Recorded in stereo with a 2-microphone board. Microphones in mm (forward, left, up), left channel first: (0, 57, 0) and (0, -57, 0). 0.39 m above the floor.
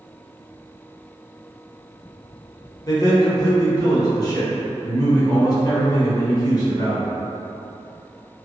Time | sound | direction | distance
2.9 | a man speaking | 35° left (ahead or behind) | 0.9 m